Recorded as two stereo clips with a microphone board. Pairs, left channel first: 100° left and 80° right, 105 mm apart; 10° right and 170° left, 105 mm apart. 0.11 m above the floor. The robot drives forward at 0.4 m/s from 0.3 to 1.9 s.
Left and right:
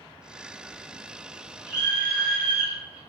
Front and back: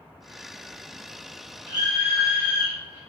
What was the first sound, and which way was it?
A scream, 135° right.